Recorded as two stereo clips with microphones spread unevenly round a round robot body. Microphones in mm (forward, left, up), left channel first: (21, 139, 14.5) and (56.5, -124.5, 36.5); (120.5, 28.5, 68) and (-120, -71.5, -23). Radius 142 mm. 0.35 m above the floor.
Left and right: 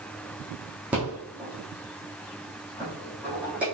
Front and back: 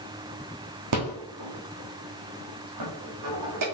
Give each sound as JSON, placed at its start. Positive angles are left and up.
{"t": 0.9, "sound": "a rattle", "azimuth_deg": -170, "distance_m": 3.0}